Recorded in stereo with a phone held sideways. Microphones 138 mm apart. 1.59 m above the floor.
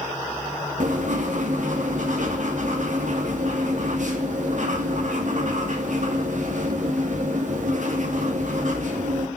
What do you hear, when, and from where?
0.8 s writing: 65° right (ahead or behind), 2.5 m